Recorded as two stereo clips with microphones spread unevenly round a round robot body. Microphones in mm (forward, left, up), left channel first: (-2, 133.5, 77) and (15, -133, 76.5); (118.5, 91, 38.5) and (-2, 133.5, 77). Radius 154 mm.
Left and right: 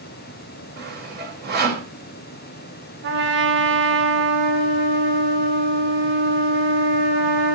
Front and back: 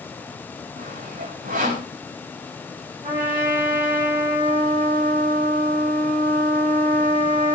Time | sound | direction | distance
0.8 | sawing | 140° right | 4 m
3.0 | a trumpet | 135° right | 3.5 m